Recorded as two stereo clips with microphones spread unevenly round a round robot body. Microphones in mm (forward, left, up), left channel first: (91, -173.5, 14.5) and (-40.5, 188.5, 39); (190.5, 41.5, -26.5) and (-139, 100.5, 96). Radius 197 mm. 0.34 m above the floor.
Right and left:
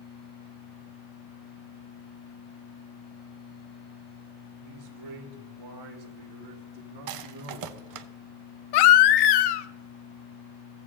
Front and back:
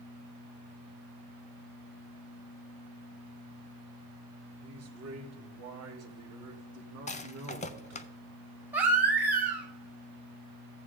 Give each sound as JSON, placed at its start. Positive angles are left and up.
{"t": 4.6, "sound": "a man speaking", "azimuth_deg": 115, "distance_m": 3.0}
{"t": 7.1, "sound": "a rattle", "azimuth_deg": 65, "distance_m": 0.5}
{"t": 8.7, "sound": "a baby crying", "azimuth_deg": -100, "distance_m": 0.6}